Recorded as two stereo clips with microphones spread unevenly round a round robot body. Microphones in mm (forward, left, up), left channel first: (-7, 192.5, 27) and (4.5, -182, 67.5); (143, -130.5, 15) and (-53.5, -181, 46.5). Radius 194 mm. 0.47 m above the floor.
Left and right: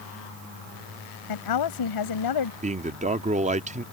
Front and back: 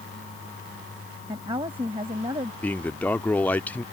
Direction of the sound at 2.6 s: 30° right.